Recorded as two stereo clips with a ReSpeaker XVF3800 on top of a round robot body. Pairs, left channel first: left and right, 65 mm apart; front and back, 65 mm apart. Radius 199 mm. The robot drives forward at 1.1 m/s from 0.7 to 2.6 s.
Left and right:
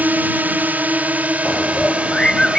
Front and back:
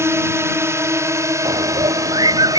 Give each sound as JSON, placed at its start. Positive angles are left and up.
{"t": 0.0, "sound": "a drone", "azimuth_deg": -150}
{"t": 1.4, "sound": "a bird", "azimuth_deg": 170}